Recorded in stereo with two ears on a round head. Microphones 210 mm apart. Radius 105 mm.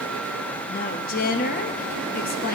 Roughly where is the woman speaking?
Left.